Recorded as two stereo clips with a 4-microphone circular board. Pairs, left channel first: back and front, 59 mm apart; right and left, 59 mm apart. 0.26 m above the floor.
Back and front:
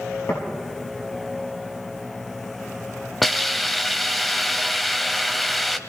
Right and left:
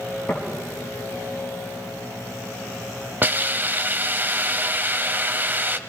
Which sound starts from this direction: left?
A hiss, at 3.2 s.